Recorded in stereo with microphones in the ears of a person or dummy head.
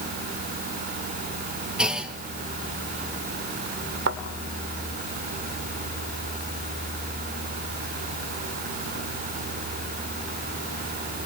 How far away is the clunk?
About 1.7 m.